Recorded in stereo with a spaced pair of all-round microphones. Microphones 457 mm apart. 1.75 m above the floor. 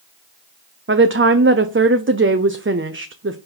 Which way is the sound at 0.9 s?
30° right (ahead or behind).